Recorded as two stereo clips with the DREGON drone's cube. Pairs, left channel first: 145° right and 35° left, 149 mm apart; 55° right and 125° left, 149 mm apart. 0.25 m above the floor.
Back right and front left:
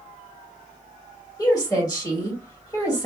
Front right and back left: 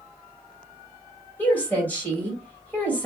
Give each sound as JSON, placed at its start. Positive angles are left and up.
{"t": 1.4, "sound": "a woman speaking", "azimuth_deg": -120, "distance_m": 1.4}